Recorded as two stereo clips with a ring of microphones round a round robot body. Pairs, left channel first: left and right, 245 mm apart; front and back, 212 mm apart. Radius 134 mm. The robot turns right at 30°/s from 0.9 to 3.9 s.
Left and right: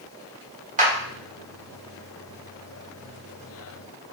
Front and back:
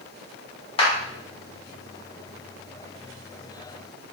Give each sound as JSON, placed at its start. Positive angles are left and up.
{"t": 0.8, "sound": "a clap", "azimuth_deg": -50, "distance_m": 1.2}